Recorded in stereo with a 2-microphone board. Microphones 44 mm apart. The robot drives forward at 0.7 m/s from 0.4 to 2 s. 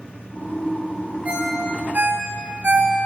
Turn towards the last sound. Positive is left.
turn(degrees=-50)  # may be behind; listen again after turning